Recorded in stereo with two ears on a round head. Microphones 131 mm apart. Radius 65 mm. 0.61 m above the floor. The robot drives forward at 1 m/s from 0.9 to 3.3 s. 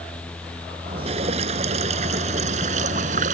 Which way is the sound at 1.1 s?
45° right (ahead or behind).